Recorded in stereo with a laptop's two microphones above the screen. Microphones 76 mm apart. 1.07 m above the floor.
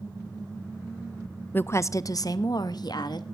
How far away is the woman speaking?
About 0.6 m.